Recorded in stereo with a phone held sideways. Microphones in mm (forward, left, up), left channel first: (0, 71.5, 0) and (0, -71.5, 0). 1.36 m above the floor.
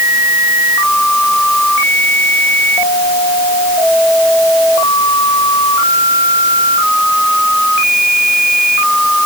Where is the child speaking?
No child speaking in this recording.